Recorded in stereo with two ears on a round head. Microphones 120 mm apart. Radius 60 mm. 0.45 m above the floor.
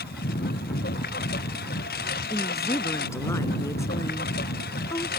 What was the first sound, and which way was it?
A lawn mower, 75° left (ahead or behind).